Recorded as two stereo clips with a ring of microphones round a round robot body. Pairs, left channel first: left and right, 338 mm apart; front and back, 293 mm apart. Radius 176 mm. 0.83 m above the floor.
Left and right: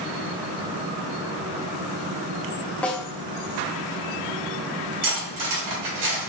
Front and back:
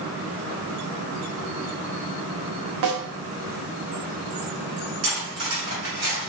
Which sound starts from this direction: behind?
A snare drum, at 2.8 s.